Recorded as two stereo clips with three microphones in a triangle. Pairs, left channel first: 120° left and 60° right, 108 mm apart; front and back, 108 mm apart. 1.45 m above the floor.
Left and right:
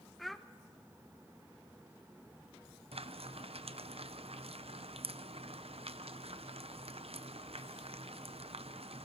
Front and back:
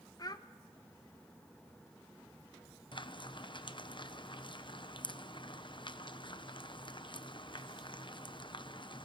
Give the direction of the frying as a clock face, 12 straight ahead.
1 o'clock.